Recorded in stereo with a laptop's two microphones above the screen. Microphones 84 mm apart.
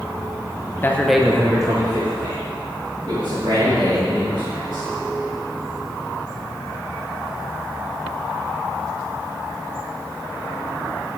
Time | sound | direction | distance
0.8 | a man speaking | 25° left (ahead or behind) | 0.6 m